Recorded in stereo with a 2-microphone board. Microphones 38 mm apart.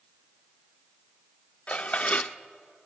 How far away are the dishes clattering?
About 0.5 m.